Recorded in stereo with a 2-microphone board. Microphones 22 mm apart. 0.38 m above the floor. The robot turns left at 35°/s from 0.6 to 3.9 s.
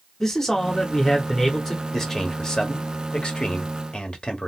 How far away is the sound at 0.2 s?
About 1.0 m.